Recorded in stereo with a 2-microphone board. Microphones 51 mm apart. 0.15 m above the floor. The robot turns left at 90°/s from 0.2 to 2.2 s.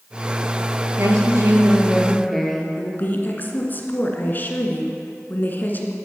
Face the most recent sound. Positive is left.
turn(degrees=40)  # may be behind; listen again after turning